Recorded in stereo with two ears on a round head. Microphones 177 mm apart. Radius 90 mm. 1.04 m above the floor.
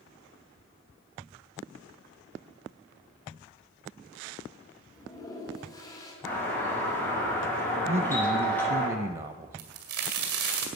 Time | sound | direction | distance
4.9 | a toilet flushing | 20° left (ahead or behind) | 3 m
6.2 | a doorbell | 10° left (ahead or behind) | 7 m
7.9 | a man speaking | 25° right (ahead or behind) | 0.6 m
9.6 | a crack | 80° right | 2 m